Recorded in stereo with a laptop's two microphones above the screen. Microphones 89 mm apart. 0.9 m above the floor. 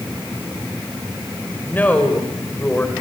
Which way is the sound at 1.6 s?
20° left (ahead or behind).